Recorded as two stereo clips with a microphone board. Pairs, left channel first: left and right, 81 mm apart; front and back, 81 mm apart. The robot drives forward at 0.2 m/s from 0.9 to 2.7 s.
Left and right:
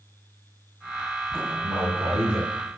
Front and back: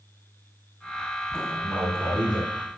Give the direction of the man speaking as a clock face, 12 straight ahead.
4 o'clock.